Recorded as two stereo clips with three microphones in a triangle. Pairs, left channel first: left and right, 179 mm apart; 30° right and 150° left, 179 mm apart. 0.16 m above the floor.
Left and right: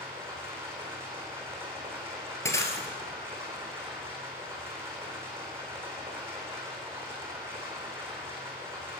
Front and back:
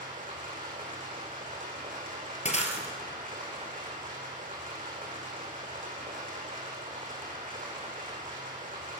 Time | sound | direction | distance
0.0 | running water | 165° right | 3.5 m
2.5 | breaking glass | 15° left | 1.6 m